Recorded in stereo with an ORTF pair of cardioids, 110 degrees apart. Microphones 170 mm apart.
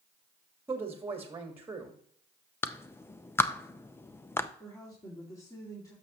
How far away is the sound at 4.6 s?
About 2.5 m.